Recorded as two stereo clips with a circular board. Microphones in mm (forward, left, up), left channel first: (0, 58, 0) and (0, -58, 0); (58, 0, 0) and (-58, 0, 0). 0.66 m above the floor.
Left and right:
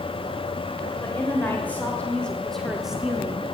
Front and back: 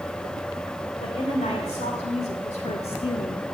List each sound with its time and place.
1.0 s a woman speaking: 20° left, 2.5 m; by 3.5 s 30° right, 0.9 m